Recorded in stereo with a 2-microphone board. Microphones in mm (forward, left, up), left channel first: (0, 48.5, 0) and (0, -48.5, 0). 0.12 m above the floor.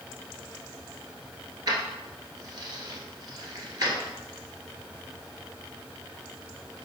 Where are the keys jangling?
40° right (ahead or behind), 1.3 m.